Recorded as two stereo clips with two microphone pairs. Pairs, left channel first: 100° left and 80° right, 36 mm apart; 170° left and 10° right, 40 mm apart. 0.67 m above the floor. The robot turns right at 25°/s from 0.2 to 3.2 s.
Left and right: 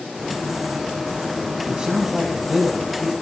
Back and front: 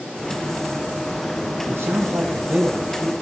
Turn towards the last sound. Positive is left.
turn(degrees=30)